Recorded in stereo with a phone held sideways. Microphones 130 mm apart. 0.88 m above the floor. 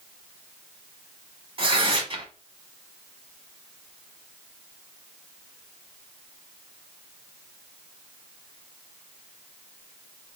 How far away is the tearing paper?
About 1.1 m.